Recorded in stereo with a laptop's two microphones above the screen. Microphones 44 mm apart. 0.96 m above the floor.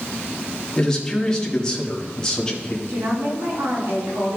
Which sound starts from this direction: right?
A woman speaking, at 2.9 s.